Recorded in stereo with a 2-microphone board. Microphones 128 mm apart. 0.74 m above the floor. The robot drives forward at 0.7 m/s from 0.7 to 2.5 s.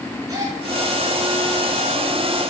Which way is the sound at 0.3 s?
30° right (ahead or behind).